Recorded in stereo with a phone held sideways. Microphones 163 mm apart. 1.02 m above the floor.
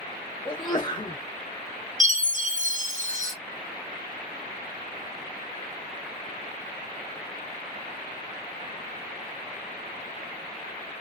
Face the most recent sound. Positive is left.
turn(degrees=-55)  # may be behind; listen again after turning